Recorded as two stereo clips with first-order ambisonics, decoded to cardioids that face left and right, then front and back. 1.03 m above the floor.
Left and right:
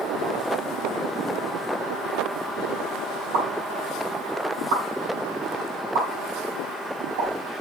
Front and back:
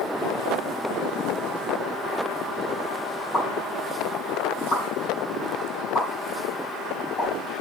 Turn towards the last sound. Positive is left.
turn(degrees=-70)